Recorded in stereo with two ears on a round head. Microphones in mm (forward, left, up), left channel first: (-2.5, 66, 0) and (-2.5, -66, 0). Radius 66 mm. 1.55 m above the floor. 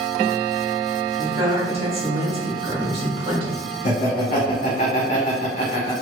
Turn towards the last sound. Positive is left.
turn(degrees=55)  # may be behind; listen again after turning